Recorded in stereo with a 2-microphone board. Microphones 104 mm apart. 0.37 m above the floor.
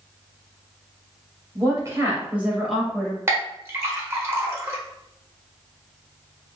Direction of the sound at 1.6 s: 40° right (ahead or behind).